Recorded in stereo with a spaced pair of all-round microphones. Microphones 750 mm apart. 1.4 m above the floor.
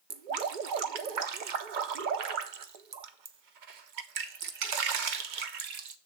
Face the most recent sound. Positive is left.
turn(degrees=-75)  # may be behind; listen again after turning